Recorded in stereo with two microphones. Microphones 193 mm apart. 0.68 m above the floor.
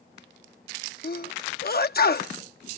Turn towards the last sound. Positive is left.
turn(degrees=55)  # may be behind; listen again after turning